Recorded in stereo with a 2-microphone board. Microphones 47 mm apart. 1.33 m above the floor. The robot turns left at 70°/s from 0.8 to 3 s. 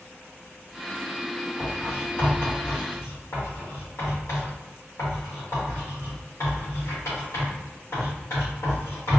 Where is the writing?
10° right (ahead or behind), 1.3 m; by 9.2 s 80° left, 1.3 m.